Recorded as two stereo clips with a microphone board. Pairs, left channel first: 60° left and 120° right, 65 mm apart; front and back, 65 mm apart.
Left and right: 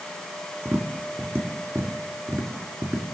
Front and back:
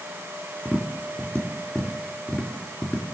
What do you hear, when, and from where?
0.7 s tapping: 65° right, 2.0 m